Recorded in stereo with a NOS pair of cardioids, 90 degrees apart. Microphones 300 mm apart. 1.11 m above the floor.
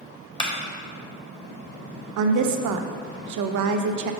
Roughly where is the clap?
Ahead.